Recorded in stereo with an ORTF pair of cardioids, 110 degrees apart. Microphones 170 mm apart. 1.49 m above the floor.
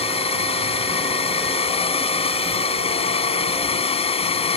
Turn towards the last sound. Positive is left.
turn(degrees=35)